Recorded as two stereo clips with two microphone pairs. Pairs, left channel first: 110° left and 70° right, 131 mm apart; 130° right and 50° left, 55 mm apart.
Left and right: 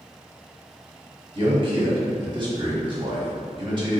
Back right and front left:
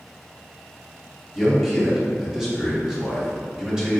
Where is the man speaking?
30° right, 1.2 m.